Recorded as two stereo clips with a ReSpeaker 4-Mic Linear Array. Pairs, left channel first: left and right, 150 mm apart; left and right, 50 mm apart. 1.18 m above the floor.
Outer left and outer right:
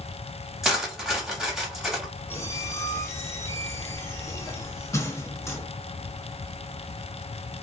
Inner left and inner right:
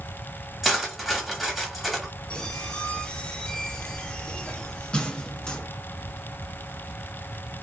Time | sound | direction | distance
0.6 | cutlery clinking | centre (ahead or behind) | 0.8 m
2.3 | a squeak | 20° left (ahead or behind) | 0.6 m